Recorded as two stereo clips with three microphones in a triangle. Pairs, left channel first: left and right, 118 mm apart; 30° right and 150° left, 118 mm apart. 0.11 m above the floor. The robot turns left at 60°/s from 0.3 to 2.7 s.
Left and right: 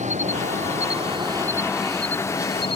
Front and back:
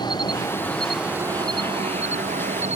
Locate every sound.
0.0 s an insect: 85° right; by 2.8 s 130° left